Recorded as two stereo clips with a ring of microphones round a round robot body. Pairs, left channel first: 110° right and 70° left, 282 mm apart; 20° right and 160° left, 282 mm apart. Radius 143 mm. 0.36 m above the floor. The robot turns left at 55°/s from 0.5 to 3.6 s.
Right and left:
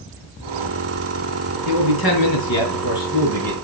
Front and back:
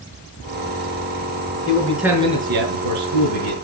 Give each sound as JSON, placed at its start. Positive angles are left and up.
{"t": 1.6, "sound": "a man speaking", "azimuth_deg": -95, "distance_m": 4.5}